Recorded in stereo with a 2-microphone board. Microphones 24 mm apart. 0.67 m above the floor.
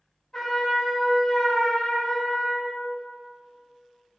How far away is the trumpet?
About 1.4 m.